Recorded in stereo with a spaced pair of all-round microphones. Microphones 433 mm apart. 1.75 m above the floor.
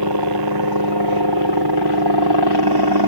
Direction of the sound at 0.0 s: 60° right (ahead or behind).